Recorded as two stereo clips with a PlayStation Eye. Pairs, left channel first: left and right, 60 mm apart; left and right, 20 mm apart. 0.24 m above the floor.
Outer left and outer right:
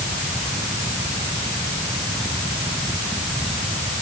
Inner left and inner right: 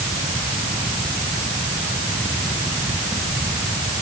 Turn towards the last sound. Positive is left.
No sound to turn to.